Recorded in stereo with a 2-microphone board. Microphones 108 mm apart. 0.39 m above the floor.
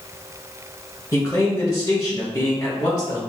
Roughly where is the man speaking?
Left.